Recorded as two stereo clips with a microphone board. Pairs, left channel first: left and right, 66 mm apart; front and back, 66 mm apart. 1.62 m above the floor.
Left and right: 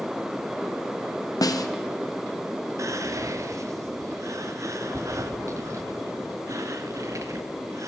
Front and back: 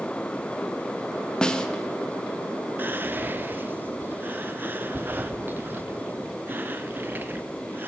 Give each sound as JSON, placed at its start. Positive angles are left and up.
{"t": 1.4, "sound": "a snare drum", "azimuth_deg": 75, "distance_m": 0.7}
{"t": 2.8, "sound": "whispering", "azimuth_deg": -120, "distance_m": 0.7}